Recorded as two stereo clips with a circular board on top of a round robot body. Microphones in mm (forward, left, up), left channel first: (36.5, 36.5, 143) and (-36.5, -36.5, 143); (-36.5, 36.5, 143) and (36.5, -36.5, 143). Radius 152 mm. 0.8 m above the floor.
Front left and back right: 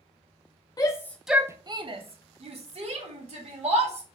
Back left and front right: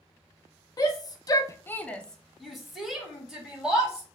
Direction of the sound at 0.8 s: 90° left.